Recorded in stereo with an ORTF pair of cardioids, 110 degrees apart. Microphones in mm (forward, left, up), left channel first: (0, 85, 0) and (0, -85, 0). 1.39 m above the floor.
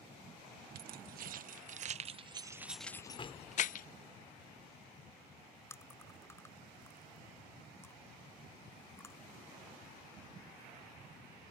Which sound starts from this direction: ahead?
Chewing, at 5.7 s.